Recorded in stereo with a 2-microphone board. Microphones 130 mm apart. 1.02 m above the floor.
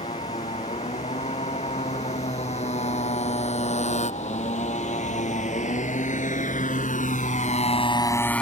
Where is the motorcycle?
55° left (ahead or behind); by 8.4 s 5° left (ahead or behind).